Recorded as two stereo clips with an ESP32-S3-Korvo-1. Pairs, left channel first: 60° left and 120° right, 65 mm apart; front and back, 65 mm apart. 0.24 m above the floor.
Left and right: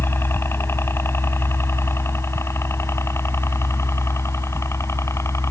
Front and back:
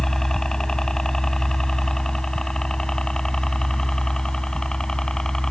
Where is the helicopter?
80° left.